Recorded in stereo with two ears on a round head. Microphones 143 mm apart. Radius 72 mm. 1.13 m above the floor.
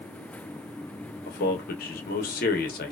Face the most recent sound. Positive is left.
turn(degrees=60)  # may be behind; listen again after turning